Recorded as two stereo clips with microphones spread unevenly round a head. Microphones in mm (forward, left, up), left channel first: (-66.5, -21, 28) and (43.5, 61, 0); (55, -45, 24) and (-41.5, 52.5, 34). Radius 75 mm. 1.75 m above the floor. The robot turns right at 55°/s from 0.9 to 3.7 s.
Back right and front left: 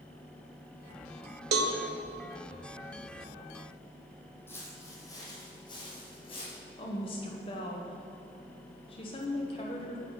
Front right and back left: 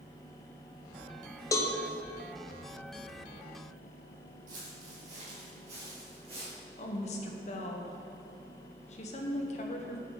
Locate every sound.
1.5 s a cowbell: 25° left, 0.8 m; by 1.7 s 35° left, 0.8 m
4.5 s footsteps: 155° left, 3 m; by 6.6 s 175° right, 4 m
6.8 s a woman speaking: 90° right, 1.3 m